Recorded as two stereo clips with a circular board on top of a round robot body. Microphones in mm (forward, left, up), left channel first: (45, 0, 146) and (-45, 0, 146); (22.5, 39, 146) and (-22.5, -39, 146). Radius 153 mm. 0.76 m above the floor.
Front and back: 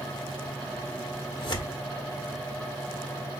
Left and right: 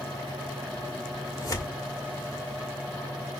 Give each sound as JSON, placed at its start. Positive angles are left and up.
{"t": 1.4, "sound": "tearing paper", "azimuth_deg": 10, "distance_m": 1.8}